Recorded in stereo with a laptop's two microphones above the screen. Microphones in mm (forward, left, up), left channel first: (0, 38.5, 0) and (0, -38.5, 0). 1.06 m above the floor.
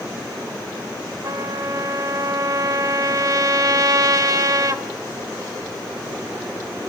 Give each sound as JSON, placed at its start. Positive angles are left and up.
{"t": 1.2, "sound": "a trumpet", "side_deg": -50, "distance_m": 1.2}